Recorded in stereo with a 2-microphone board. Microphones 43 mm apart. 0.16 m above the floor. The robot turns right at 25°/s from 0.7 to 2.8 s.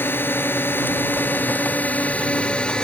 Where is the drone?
100° left; by 2.8 s 155° left.